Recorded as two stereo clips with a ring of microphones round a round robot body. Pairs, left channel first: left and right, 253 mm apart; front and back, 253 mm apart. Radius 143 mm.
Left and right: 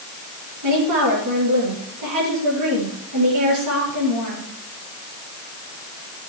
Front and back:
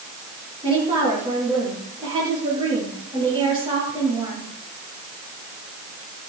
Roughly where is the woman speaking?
Right.